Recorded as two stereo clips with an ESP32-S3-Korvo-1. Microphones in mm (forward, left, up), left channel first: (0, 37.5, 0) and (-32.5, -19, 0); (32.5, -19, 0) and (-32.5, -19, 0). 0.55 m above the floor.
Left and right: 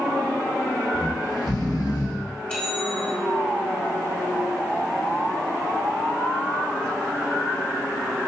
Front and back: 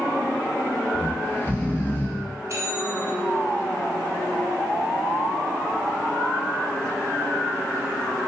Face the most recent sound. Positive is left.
turn(degrees=140)